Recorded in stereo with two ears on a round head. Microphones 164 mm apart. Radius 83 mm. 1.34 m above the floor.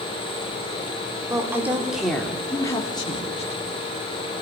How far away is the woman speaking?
About 3.5 m.